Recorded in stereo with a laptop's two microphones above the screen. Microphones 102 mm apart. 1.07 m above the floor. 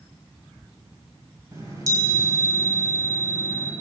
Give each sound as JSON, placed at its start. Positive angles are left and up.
{"t": 1.5, "sound": "a chime", "side_deg": -35, "distance_m": 1.5}